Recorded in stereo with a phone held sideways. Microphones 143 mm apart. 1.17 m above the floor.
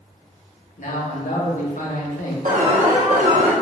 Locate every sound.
0.8 s a man speaking: 70° left (ahead or behind), 1.1 m
2.5 s an alarm: 65° right (ahead or behind), 1.1 m